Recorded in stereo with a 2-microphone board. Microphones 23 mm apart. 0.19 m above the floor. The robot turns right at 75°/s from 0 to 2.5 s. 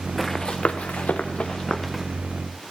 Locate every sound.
0.2 s running footsteps: 10° left (ahead or behind), 1.2 m; by 2.0 s 5° right (ahead or behind), 1.7 m